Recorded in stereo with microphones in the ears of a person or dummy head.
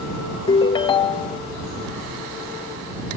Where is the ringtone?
30° left (ahead or behind).